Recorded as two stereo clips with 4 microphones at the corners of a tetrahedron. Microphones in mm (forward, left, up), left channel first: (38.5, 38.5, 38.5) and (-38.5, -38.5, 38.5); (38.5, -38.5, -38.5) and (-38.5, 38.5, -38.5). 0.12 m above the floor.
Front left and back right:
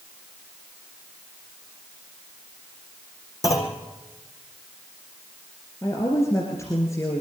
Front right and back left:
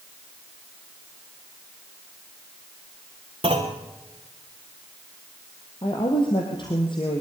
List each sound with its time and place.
3.4 s a clunk: 105° left, 2.5 m
5.8 s a woman speaking: 15° right, 2.5 m